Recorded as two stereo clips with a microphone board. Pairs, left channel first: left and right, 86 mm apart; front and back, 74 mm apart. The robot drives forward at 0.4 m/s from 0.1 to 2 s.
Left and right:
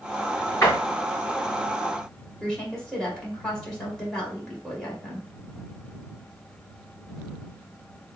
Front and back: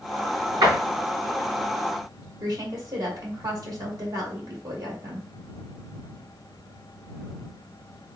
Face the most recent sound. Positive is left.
turn(degrees=175)